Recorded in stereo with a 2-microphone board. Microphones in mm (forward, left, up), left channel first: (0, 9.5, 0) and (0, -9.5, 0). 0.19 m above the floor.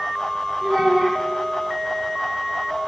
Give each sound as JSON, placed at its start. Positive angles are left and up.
{"t": 0.6, "sound": "a child speaking", "side_deg": 0, "distance_m": 1.0}